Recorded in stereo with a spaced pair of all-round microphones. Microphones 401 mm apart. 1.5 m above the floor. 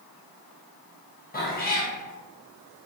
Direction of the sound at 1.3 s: 20° left (ahead or behind).